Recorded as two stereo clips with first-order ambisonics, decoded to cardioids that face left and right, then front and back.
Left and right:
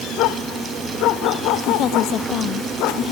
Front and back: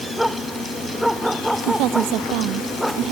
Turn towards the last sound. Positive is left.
turn(degrees=140)